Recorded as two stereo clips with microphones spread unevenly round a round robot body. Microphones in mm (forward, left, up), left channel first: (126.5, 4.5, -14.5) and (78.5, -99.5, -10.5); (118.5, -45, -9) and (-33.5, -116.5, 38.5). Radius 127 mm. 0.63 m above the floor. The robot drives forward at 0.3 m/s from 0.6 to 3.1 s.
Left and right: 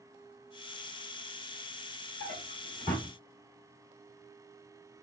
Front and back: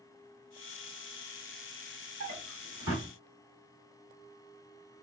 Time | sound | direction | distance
2.2 | a drawer | straight behind | 1.1 m